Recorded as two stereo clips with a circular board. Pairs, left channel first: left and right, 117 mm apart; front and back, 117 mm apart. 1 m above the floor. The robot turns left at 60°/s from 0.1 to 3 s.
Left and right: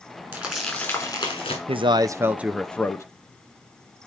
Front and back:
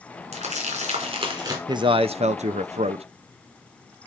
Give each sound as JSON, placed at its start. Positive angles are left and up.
{"t": 0.3, "sound": "crumpling", "azimuth_deg": -160, "distance_m": 4.0}
{"t": 1.7, "sound": "a man speaking", "azimuth_deg": -125, "distance_m": 0.5}